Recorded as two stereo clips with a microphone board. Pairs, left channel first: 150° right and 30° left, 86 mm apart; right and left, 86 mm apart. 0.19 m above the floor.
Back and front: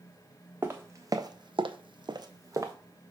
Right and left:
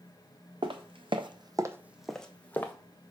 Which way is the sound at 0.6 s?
95° left.